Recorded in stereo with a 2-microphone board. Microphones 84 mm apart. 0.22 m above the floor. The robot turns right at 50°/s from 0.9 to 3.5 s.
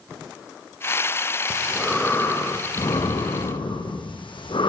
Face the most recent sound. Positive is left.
turn(degrees=85)